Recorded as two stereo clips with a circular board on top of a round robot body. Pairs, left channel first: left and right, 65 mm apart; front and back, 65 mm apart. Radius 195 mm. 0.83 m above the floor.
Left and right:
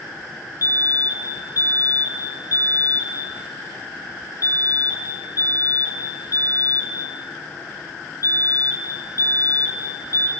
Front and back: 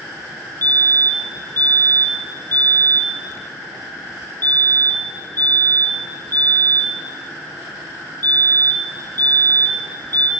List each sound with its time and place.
0.6 s a fire alarm: 55° left, 4 m